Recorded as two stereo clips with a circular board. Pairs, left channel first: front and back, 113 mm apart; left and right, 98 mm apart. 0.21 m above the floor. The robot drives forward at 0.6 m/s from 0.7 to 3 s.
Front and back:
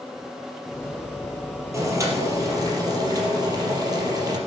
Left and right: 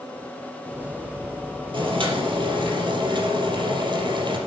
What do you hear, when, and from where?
1.7 s boiling: 115° right, 4 m; by 4.4 s 125° right, 4.5 m